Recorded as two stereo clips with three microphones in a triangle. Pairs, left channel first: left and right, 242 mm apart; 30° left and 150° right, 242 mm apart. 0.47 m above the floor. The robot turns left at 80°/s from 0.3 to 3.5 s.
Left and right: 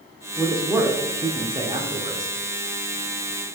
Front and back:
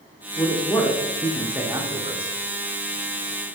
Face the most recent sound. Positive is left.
turn(degrees=125)